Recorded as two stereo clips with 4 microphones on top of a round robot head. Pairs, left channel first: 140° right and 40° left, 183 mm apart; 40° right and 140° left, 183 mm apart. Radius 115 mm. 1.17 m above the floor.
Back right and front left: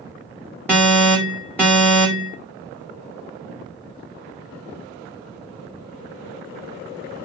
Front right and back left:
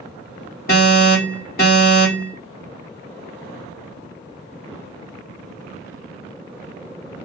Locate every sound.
0.7 s an alarm: 60° right, 1.7 m